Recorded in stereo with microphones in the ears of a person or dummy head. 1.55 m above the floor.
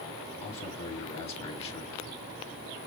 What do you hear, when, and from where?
0.4 s a man speaking: 30° left (ahead or behind), 4.5 m